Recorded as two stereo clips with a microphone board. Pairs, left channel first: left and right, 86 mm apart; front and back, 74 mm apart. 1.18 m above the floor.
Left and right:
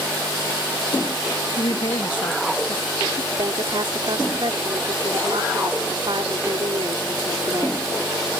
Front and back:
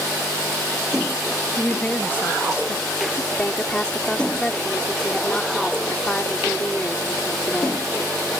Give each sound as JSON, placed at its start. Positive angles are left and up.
{"t": 1.6, "sound": "a woman speaking", "azimuth_deg": 75}
{"t": 3.3, "sound": "a woman speaking", "azimuth_deg": -75}